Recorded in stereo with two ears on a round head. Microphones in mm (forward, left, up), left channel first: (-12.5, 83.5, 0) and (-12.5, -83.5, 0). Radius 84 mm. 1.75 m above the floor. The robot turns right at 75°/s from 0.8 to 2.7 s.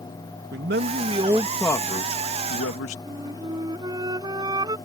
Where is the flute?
25° right (ahead or behind).